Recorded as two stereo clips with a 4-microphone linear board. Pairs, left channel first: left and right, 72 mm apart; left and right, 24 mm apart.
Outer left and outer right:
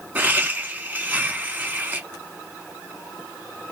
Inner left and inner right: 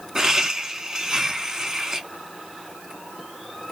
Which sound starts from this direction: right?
Laughter, at 0.1 s.